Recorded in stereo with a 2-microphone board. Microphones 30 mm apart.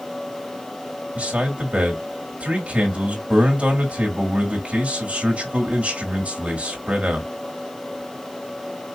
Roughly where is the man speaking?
Right.